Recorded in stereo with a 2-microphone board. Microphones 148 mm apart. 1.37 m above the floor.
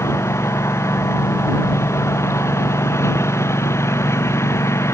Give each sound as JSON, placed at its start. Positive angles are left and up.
{"t": 0.0, "sound": "a lawn mower", "side_deg": 20}